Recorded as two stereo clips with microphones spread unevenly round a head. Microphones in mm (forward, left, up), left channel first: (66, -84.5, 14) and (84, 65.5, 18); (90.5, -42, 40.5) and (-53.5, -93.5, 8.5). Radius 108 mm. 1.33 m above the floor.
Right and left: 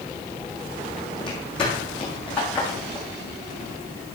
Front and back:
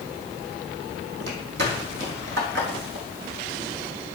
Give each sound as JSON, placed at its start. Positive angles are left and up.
{"t": 1.2, "sound": "footsteps", "azimuth_deg": 175, "distance_m": 2.5}